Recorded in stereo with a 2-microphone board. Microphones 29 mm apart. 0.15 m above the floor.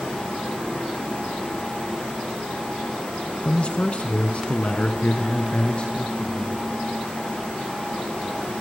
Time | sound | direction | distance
3.5 | a man speaking | 35° left (ahead or behind) | 1.4 m